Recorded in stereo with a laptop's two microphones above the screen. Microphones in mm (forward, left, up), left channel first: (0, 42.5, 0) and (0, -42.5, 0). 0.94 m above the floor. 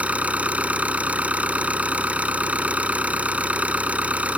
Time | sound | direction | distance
0.0 | an engine running | 15° right (ahead or behind) | ?